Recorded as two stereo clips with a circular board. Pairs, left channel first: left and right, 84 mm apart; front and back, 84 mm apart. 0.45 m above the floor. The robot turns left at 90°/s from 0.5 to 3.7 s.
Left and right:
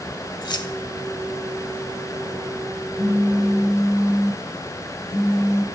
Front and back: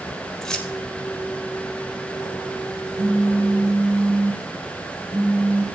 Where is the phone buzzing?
170° left, 1.5 m; by 5.6 s 100° left, 1.5 m.